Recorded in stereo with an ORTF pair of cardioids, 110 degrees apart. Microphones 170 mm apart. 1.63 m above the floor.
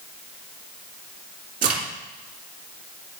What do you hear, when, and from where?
1.6 s a crack: 60° right, 2.5 m